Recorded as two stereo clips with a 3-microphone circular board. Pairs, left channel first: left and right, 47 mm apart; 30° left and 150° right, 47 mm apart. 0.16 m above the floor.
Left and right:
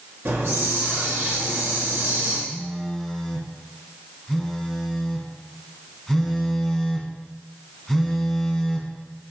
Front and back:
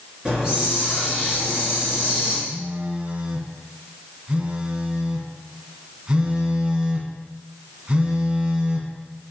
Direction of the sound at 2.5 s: 170° left.